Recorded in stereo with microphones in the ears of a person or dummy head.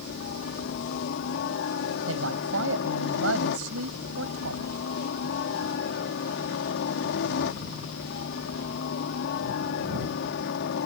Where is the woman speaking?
80° right.